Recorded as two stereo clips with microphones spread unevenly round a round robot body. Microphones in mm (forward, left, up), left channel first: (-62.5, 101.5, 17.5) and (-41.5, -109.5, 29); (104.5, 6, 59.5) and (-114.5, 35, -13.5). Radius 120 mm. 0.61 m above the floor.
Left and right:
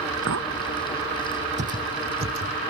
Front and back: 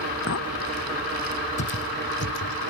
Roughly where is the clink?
Ahead right.